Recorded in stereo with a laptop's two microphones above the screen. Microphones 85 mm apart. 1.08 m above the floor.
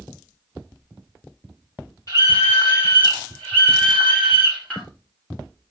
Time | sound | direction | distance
2.1 | a scream | 40° left (ahead or behind) | 3 m